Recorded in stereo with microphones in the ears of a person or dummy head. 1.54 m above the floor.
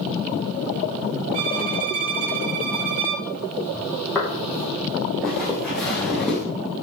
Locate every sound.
1.3 s a violin: 45° right (ahead or behind), 1.4 m
4.2 s footsteps: 10° left (ahead or behind), 4 m; by 6.4 s 5° left (ahead or behind), 7 m